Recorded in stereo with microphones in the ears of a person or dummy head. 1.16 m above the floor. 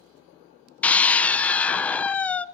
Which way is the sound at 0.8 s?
10° left (ahead or behind).